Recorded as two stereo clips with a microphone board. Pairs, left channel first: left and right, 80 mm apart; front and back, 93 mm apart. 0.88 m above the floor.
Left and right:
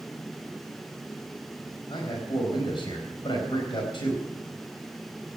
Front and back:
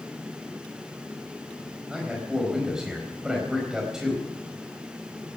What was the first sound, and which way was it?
A man speaking, 95° left.